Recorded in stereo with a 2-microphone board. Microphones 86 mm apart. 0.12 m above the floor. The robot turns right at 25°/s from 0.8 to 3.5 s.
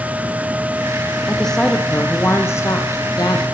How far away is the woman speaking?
About 4 m.